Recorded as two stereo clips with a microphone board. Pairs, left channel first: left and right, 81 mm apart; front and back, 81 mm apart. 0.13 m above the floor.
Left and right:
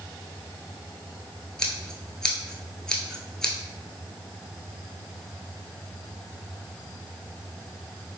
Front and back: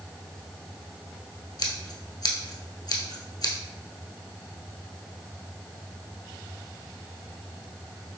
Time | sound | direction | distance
1.6 | scissors | 10° left | 1.0 m